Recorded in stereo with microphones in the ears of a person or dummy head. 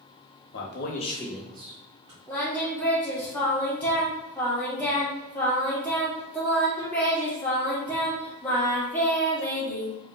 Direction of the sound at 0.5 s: 60° left (ahead or behind).